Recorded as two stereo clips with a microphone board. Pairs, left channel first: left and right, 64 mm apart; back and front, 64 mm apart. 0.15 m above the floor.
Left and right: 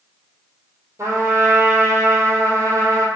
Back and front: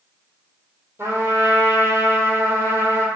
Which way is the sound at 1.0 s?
45° right.